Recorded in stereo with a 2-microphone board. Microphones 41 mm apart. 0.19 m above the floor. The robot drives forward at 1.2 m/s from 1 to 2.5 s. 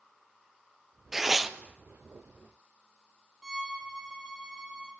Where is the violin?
15° right (ahead or behind), 4.5 m.